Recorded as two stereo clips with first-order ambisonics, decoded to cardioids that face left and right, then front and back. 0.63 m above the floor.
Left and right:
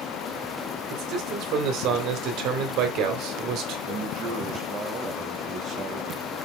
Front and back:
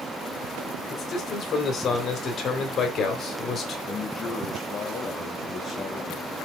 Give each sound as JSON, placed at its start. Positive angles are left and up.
{"t": 0.9, "sound": "a man speaking", "azimuth_deg": -55, "distance_m": 2.5}
{"t": 3.9, "sound": "a man speaking", "azimuth_deg": -50, "distance_m": 1.2}